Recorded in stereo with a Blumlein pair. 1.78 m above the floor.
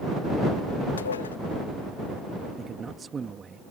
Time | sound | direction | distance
1.0 | dishes clattering | 70° left | ?
2.6 | a man speaking | 15° right | ?